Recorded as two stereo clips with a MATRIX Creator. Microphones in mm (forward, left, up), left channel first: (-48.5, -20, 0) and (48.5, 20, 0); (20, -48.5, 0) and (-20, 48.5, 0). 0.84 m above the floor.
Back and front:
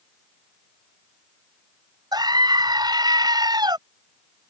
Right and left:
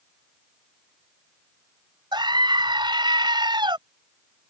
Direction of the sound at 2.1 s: 70° left.